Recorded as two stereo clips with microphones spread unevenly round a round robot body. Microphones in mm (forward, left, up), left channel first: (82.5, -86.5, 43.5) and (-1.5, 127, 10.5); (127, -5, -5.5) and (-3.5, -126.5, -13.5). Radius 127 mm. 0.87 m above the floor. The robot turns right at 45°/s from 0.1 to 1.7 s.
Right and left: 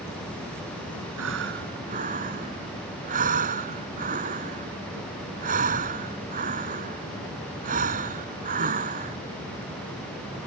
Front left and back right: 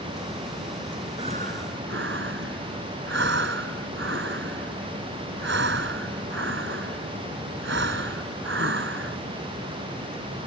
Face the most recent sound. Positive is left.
turn(degrees=175)